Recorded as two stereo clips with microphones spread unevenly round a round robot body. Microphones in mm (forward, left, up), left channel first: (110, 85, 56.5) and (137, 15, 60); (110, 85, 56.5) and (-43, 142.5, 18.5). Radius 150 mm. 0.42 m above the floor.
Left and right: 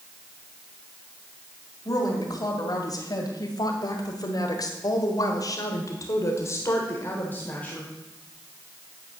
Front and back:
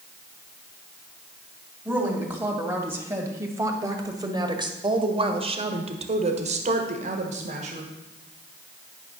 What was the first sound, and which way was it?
A woman speaking, 80° left.